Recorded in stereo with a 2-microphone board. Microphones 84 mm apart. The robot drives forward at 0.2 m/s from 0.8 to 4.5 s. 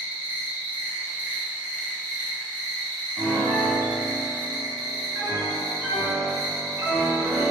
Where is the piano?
45° right (ahead or behind), 1.0 m; by 7.5 s 35° right (ahead or behind), 1.2 m.